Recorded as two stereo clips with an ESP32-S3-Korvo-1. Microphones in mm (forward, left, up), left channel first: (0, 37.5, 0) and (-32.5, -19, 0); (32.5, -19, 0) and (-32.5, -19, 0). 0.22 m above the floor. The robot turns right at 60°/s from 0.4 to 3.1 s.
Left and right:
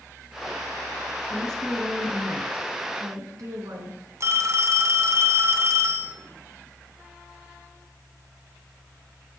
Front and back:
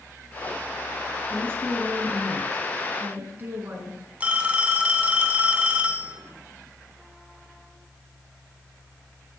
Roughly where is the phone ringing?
Behind right.